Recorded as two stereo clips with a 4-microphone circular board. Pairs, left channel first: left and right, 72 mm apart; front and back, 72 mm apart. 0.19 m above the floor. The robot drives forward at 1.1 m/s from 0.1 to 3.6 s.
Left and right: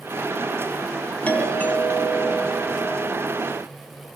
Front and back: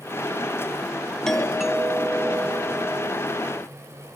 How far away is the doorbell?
About 1.7 m.